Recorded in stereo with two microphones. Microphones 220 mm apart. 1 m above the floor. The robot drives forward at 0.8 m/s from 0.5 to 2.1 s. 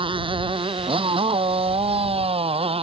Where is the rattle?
No rattle in this recording.